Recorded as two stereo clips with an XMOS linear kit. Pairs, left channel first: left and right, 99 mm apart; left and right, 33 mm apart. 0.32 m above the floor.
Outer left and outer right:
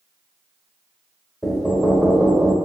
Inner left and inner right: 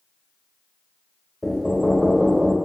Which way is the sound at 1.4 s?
Centre (ahead or behind).